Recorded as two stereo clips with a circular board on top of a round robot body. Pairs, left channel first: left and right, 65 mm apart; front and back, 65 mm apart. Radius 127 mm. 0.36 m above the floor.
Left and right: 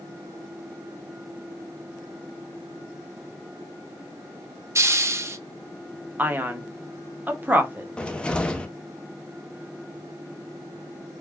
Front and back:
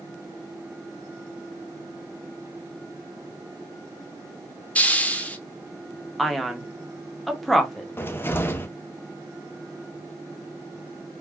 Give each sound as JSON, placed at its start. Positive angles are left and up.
{"t": 4.8, "sound": "a hiss", "azimuth_deg": -60, "distance_m": 0.8}
{"t": 6.2, "sound": "a man speaking", "azimuth_deg": -90, "distance_m": 1.0}
{"t": 8.0, "sound": "a cupboard door", "azimuth_deg": 25, "distance_m": 0.7}